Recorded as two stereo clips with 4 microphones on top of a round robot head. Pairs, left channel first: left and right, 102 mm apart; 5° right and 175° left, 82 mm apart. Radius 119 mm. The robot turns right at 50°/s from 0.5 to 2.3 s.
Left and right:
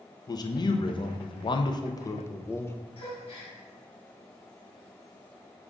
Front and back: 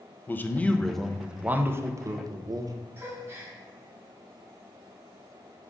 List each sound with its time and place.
0.3 s a man speaking: 60° left, 0.5 m; by 2.8 s 150° left, 0.5 m
3.0 s a gasp: 115° left, 1.0 m